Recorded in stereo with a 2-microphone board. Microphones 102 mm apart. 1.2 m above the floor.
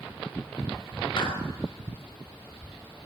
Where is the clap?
50° left (ahead or behind), 6 m.